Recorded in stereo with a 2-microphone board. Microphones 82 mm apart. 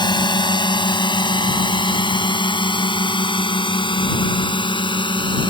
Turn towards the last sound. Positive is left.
turn(degrees=85)